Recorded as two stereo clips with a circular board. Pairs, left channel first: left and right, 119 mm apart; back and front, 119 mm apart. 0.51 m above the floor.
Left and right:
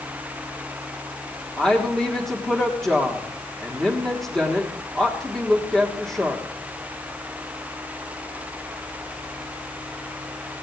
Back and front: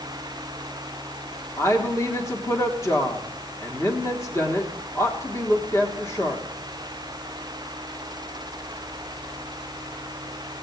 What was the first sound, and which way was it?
A woman speaking, 170° left.